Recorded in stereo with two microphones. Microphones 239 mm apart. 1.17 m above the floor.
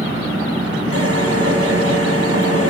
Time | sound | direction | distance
0.9 | a drill | 75° right (ahead or behind) | 7 m